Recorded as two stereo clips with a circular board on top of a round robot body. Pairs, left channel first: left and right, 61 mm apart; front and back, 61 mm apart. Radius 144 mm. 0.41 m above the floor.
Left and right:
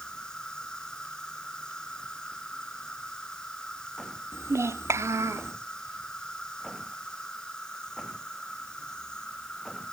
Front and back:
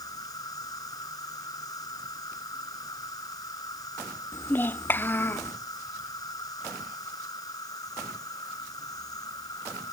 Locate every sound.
0.0 s an insect: 15° left
4.3 s a child speaking: 55° right